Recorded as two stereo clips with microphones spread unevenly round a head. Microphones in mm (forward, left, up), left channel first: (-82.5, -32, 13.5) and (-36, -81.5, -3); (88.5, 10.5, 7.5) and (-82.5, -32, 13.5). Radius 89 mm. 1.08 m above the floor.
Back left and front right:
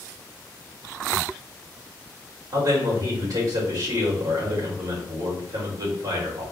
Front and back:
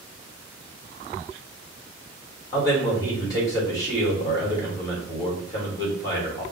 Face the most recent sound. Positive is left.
turn(degrees=-55)